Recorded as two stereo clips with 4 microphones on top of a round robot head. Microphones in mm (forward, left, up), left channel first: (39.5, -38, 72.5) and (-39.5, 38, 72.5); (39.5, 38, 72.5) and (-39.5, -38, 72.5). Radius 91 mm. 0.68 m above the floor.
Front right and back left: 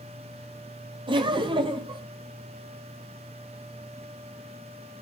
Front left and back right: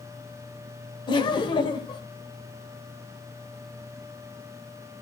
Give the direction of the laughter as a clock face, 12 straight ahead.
9 o'clock.